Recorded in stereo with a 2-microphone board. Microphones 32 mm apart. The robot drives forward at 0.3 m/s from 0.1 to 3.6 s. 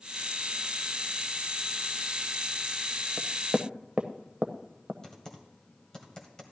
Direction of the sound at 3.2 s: 40° right (ahead or behind).